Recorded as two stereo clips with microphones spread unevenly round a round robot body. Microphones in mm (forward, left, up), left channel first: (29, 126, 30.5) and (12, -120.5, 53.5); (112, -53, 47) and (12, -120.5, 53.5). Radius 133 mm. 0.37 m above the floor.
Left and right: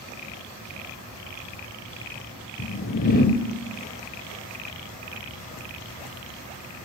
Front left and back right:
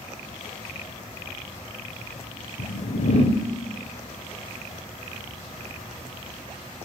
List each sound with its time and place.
2.6 s a whoosh: 45° left, 1.0 m